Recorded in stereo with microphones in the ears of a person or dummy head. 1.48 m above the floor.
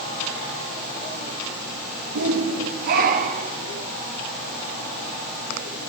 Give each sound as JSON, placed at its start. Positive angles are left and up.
{"t": 2.1, "sound": "a shout", "side_deg": -80, "distance_m": 2.0}